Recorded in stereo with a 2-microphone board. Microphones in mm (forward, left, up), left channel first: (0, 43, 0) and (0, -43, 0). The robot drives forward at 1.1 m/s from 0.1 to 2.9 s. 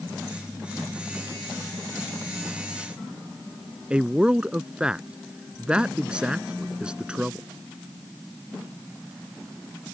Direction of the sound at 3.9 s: 10° right (ahead or behind).